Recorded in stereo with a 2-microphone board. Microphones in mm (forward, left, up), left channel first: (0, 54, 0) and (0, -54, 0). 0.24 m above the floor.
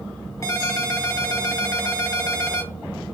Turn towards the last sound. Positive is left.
turn(degrees=30)  # may be behind; listen again after turning